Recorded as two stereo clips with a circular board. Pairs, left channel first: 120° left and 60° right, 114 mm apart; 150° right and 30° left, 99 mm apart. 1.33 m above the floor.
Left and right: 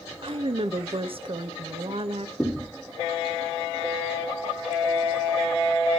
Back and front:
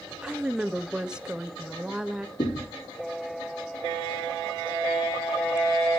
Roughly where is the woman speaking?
Ahead right.